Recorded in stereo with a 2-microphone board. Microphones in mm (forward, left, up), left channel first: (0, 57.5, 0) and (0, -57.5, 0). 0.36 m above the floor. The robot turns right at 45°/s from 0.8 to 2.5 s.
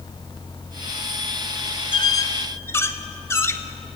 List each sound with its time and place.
1.9 s a squeak: 45° left (ahead or behind), 0.7 m; by 3.6 s 25° left (ahead or behind), 0.7 m